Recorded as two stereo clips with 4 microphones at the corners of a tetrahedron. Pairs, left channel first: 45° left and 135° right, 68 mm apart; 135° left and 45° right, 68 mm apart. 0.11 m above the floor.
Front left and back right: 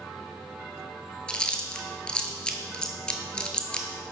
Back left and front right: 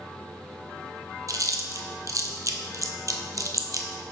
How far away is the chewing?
About 0.6 m.